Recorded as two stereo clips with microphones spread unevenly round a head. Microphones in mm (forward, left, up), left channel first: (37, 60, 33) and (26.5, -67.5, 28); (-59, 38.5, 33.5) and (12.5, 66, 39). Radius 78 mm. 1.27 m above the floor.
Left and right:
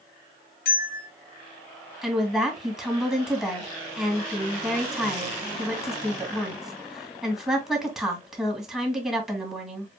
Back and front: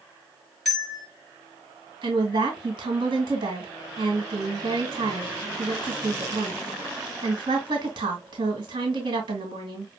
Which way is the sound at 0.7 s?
110° left.